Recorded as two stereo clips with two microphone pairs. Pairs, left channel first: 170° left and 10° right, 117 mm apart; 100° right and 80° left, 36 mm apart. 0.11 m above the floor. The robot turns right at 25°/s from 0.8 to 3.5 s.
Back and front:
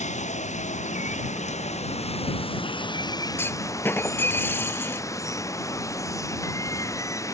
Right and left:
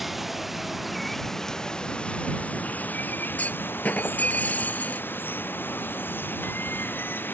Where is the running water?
165° left; by 7.3 s 125° right.